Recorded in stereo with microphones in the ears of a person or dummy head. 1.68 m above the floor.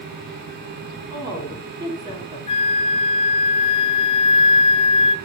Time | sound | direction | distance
1.1 | a woman speaking | 25° right (ahead or behind) | 5 m
2.5 | a flute | 30° left (ahead or behind) | 0.7 m